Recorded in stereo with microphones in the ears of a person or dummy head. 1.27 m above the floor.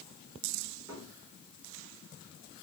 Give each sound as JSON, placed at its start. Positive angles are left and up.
{"t": 0.9, "sound": "a cupboard door", "side_deg": -10, "distance_m": 4.0}